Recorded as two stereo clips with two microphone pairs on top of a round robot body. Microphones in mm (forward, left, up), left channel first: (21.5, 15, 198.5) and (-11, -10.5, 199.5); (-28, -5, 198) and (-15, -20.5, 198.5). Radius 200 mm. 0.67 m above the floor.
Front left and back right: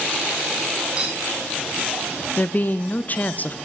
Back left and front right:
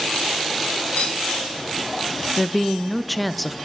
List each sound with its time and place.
1.0 s a clink: 150° left, 1.6 m
2.4 s a woman speaking: 55° left, 0.6 m